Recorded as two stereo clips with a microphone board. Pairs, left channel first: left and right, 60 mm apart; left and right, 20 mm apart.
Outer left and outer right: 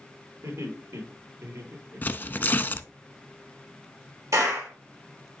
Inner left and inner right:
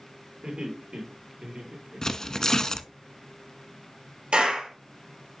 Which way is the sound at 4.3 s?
75° right (ahead or behind).